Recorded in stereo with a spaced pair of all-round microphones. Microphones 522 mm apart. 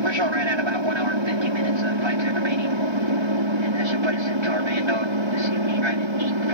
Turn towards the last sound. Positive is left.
turn(degrees=-60)  # may be behind; listen again after turning